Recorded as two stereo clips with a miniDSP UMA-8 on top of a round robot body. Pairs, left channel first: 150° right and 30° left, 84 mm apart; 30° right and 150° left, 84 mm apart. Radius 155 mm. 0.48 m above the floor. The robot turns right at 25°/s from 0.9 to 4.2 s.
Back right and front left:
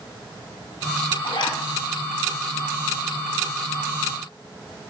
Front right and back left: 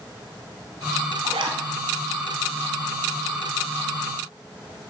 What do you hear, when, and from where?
1.2 s a zipper: 175° left, 1.0 m; by 1.6 s straight behind, 1.0 m